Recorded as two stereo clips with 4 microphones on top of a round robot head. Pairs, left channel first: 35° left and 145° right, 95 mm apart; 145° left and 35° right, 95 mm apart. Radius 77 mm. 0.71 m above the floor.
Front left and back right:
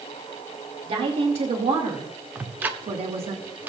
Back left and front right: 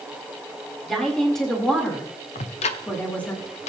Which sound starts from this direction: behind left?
Ticking, at 2.4 s.